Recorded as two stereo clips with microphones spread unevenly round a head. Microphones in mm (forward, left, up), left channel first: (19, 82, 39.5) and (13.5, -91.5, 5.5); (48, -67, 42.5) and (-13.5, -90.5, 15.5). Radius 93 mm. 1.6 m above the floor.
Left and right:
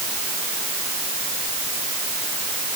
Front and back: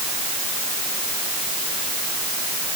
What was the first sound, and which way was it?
Only background noise.